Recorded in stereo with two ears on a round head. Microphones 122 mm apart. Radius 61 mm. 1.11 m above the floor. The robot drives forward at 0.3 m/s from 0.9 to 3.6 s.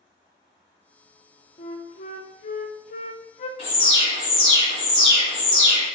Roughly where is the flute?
Left.